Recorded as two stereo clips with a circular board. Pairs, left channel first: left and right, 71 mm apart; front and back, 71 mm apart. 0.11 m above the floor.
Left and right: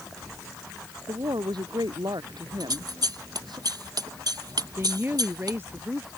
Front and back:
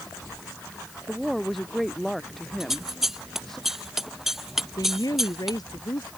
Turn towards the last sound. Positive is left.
turn(degrees=-30)